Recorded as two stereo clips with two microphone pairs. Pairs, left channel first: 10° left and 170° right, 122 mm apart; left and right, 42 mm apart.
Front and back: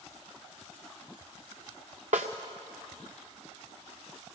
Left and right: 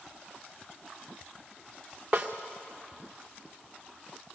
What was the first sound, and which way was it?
A snare drum, 155° right.